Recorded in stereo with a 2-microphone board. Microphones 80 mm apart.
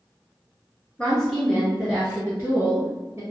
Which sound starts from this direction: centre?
A woman speaking, at 1.0 s.